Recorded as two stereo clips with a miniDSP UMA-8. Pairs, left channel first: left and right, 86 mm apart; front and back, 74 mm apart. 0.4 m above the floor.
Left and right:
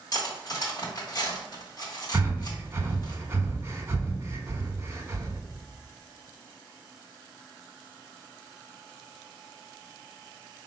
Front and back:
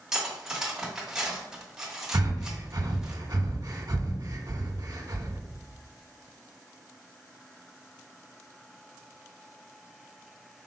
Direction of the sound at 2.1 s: 145° right.